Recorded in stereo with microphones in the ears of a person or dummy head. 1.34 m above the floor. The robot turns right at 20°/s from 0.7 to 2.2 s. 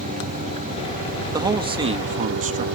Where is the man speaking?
15° right (ahead or behind); by 2.6 s 30° right (ahead or behind).